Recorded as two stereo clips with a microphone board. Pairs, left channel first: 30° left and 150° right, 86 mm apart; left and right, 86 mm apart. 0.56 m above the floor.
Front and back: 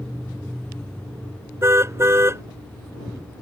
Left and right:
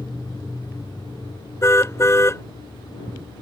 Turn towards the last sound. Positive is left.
turn(degrees=150)